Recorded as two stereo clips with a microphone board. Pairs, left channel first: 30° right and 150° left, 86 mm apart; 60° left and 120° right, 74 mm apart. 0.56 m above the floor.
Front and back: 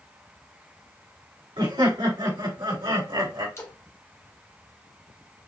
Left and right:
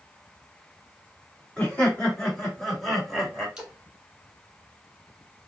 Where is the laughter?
135° left, 2.5 m; by 3.5 s 155° left, 2.5 m.